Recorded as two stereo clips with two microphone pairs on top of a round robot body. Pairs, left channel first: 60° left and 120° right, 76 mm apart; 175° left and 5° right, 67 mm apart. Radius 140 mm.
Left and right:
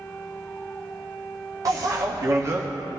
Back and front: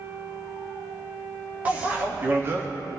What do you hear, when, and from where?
1.6 s a bicycle bell: 75° right, 2 m; by 2.7 s 60° right, 1.0 m